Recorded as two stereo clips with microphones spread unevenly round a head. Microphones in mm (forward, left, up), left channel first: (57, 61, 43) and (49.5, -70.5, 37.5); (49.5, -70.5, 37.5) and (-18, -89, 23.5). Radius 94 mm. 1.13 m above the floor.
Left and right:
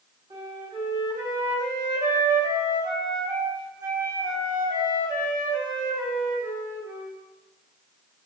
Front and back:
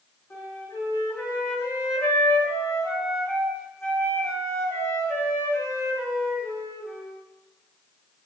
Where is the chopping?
No chopping in this recording.